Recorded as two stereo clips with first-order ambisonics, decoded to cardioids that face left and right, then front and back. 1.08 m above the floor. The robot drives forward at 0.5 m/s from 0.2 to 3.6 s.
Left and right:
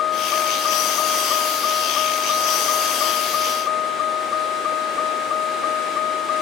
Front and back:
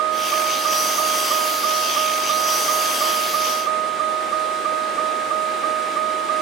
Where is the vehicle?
140° left.